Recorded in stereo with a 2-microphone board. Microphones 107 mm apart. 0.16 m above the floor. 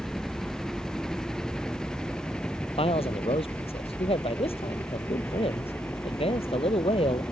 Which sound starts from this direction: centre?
A helicopter, at 0.0 s.